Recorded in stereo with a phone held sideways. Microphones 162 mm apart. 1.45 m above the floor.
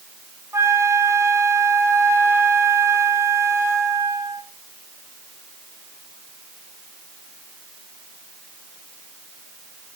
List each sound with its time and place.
0.5 s a flute: 15° right (ahead or behind), 3.5 m